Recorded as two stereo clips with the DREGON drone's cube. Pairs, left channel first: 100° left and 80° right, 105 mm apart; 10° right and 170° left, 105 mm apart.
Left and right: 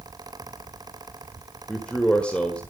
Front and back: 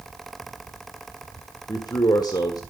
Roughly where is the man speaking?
Ahead left.